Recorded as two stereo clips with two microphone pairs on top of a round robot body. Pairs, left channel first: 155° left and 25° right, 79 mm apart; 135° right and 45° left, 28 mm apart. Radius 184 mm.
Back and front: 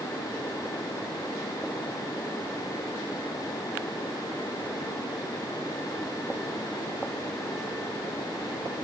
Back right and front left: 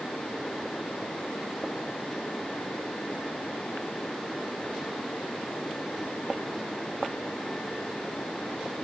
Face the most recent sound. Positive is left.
No sound to turn to.